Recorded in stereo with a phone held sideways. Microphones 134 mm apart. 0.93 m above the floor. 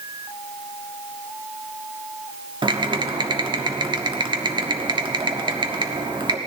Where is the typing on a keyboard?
35° right (ahead or behind), 1.1 m.